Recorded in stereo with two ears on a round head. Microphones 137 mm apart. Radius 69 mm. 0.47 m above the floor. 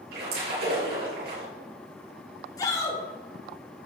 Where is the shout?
25° left (ahead or behind), 6 m.